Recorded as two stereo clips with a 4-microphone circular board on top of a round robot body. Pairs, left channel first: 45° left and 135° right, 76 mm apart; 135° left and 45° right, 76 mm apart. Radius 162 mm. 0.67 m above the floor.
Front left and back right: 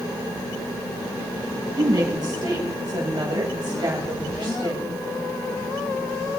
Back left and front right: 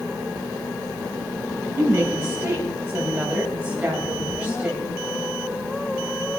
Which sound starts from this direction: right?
A woman speaking, at 1.8 s.